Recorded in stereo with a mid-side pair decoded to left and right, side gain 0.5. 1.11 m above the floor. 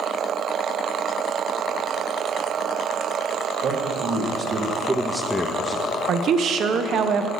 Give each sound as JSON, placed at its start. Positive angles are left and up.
{"t": 3.6, "sound": "a man speaking", "azimuth_deg": -65, "distance_m": 1.8}
{"t": 6.1, "sound": "a woman speaking", "azimuth_deg": -55, "distance_m": 0.6}